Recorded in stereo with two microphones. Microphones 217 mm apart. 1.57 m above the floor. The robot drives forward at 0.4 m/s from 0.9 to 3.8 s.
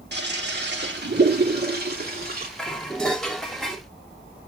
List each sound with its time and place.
0.1 s a toilet flushing: 50° right (ahead or behind), 2.5 m; by 2.5 s 45° right (ahead or behind), 3 m
2.6 s dishes clattering: 5° left (ahead or behind), 2.5 m